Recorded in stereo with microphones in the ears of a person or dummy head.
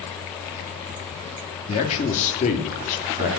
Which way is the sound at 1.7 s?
30° left (ahead or behind).